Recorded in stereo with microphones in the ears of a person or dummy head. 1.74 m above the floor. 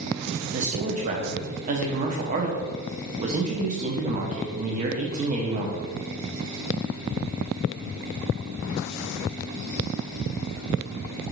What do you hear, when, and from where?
0.5 s a man speaking: 40° right (ahead or behind), 0.6 m